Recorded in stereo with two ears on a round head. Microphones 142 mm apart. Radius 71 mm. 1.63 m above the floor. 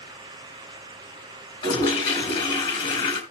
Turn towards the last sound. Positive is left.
turn(degrees=35)  # may be behind; listen again after turning